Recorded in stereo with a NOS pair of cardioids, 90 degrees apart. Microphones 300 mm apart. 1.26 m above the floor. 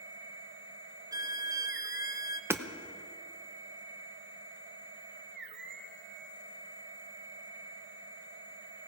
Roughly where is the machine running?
Ahead right.